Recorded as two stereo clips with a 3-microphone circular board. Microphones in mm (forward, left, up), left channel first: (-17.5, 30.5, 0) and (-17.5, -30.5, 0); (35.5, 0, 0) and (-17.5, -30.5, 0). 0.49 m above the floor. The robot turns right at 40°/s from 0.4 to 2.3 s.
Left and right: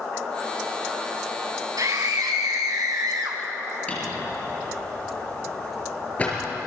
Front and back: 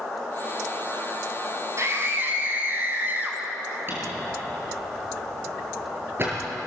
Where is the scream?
110° right, 5 m; by 3.4 s 90° right, 5 m.